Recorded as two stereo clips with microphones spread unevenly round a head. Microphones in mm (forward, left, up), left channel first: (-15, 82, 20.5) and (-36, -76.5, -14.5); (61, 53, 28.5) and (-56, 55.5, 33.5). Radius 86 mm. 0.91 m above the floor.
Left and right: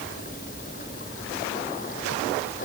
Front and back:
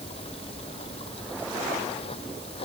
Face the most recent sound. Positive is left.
turn(degrees=35)